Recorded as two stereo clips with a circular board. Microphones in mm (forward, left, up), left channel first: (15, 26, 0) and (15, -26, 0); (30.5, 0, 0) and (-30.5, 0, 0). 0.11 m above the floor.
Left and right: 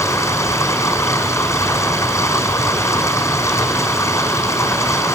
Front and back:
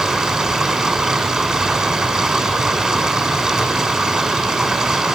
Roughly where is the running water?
Left.